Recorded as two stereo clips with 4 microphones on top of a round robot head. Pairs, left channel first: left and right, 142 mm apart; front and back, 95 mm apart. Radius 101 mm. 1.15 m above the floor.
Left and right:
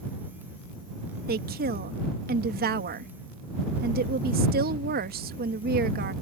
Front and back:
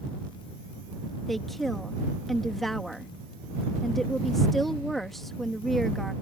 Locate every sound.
1.3 s a woman speaking: 85° right